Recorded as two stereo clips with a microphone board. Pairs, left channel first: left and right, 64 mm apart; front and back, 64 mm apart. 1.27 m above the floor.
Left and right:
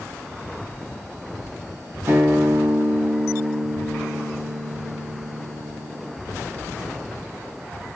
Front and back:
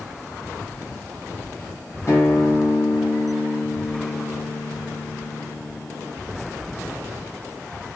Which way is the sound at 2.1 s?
40° right.